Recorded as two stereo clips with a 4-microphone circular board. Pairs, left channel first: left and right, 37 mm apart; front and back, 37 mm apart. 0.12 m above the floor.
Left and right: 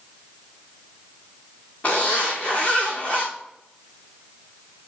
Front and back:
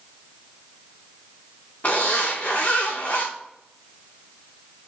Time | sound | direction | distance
1.8 | a zipper | 45° left | 3.5 m